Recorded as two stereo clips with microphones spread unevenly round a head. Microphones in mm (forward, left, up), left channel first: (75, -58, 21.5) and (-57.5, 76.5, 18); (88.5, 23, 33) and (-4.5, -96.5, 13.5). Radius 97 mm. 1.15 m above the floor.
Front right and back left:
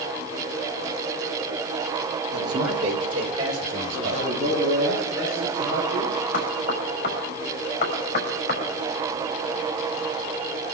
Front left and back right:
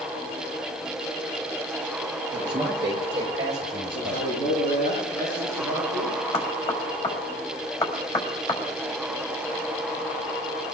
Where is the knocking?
5° left, 5.5 m.